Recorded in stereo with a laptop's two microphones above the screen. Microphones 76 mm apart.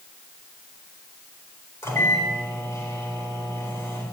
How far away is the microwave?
About 4 m.